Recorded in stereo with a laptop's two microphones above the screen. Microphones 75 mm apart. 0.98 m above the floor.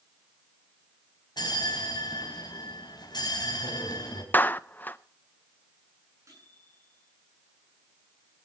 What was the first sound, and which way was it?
A bell, 75° left (ahead or behind).